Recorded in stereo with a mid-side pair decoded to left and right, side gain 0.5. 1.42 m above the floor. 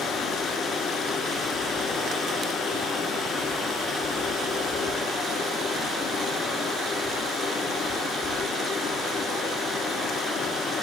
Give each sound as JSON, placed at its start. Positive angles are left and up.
{"t": 0.0, "sound": "running water", "azimuth_deg": 50, "distance_m": 5.5}